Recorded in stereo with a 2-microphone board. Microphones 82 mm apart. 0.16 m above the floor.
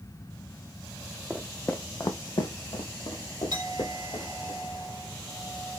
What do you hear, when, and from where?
1.3 s footsteps: 5° right (ahead or behind), 0.6 m; by 4.5 s 65° left (ahead or behind), 1.9 m
3.5 s a clink: 65° right (ahead or behind), 1.5 m